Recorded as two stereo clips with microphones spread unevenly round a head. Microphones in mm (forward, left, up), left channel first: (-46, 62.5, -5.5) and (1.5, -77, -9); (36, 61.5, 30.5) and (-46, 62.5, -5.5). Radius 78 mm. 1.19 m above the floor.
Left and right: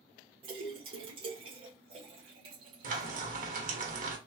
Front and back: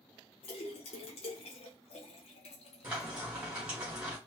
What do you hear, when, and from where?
0.4 s a splash: 10° right, 1.2 m
2.8 s frying: 105° right, 1.2 m